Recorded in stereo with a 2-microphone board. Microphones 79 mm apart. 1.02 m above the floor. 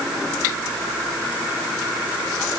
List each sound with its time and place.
Only background noise.